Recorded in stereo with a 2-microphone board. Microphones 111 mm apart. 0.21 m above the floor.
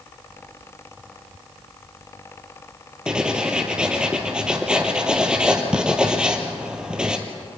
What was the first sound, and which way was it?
Writing, 10° right (ahead or behind).